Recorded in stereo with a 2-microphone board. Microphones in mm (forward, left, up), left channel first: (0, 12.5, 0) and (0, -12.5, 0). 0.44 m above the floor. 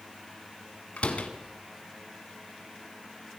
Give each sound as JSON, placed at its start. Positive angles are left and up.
{"t": 1.0, "sound": "a door slam", "side_deg": 75, "distance_m": 2.5}